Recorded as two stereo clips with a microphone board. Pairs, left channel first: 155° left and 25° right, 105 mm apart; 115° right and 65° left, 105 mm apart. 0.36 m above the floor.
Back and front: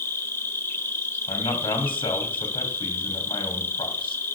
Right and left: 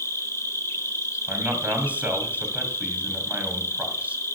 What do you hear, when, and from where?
0.0 s an insect: 155° right, 0.8 m
1.3 s a man speaking: 140° left, 2.0 m